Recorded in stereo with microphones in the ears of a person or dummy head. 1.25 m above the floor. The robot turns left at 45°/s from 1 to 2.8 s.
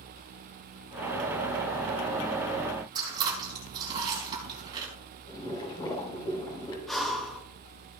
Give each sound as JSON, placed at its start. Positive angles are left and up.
{"t": 3.0, "sound": "chewing", "side_deg": -25, "distance_m": 4.0}
{"t": 5.3, "sound": "boiling", "side_deg": 25, "distance_m": 5.5}
{"t": 6.9, "sound": "breathing", "side_deg": 0, "distance_m": 1.9}